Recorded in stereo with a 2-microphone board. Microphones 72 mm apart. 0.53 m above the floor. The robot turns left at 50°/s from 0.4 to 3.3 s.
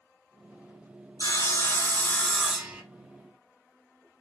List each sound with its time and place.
1.2 s sawing: 65° left, 1.1 m; by 2.8 s 20° right, 1.1 m